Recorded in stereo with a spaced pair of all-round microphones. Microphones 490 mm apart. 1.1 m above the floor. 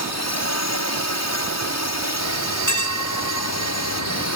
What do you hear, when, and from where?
0.0 s a drone: 30° left (ahead or behind)
2.2 s a bell: 35° left (ahead or behind)